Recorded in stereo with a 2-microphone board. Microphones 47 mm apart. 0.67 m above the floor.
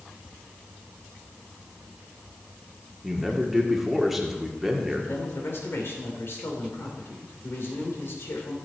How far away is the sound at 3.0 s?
About 1.7 m.